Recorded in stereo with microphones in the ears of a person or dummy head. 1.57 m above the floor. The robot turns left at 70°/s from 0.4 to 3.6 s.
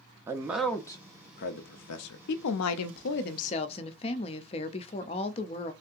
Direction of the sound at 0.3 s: 20° right (ahead or behind).